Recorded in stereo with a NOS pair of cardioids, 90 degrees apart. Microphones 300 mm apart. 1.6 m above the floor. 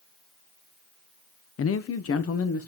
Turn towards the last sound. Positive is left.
turn(degrees=50)